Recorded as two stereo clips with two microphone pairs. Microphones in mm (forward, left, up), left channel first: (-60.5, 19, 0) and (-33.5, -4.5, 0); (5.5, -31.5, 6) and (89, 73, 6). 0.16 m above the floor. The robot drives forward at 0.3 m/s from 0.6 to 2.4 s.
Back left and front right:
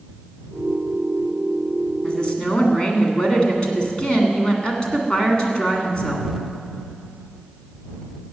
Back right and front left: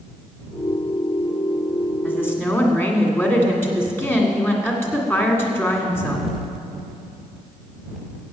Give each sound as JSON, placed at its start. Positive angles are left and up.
{"t": 2.0, "sound": "a woman speaking", "azimuth_deg": 170, "distance_m": 1.7}